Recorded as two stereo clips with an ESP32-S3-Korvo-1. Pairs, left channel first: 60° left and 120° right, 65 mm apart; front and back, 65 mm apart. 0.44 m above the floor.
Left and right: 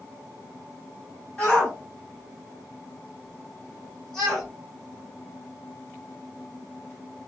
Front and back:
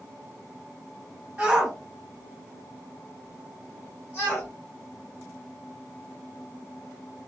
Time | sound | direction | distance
1.4 | a shout | 130° left | 1.5 m